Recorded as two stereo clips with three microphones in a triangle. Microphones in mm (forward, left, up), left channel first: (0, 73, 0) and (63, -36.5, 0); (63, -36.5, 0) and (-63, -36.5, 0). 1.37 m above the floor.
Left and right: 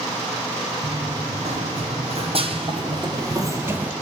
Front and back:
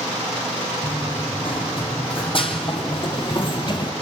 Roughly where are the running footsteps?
Ahead right.